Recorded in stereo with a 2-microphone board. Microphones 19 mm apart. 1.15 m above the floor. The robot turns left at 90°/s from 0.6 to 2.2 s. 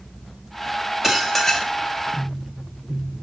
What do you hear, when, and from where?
1.0 s dishes clattering: 160° right, 1.4 m; by 1.7 s 140° left, 1.4 m